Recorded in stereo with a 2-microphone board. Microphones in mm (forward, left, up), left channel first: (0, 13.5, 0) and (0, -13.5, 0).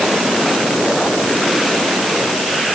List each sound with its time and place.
Only background noise.